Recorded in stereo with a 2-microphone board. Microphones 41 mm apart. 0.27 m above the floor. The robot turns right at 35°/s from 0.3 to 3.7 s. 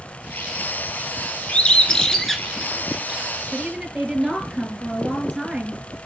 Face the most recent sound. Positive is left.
turn(degrees=-15)  # may be behind; listen again after turning